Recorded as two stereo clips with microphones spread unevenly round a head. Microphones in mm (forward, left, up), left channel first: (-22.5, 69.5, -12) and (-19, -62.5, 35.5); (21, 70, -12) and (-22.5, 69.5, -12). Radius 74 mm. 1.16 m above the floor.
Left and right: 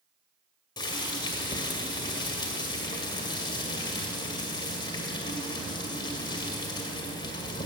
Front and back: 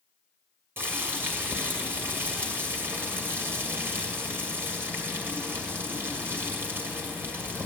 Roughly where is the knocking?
I don't hear knocking.